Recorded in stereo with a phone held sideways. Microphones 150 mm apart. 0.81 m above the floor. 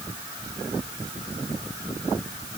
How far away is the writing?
I don't hear writing.